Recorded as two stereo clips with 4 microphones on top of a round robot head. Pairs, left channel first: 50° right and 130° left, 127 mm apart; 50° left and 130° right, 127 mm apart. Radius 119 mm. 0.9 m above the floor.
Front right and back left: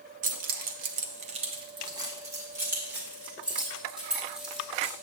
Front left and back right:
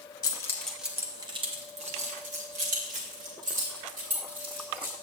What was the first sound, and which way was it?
Keys jangling, 110° left.